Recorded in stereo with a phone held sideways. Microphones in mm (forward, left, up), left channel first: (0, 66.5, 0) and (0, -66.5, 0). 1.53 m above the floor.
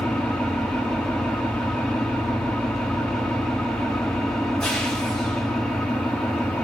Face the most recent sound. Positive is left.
turn(degrees=5)  # may be behind; listen again after turning